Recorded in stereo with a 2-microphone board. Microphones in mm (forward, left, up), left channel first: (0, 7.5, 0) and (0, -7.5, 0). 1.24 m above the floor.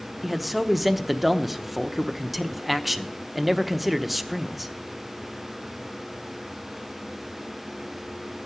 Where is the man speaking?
5° right (ahead or behind), 0.9 m.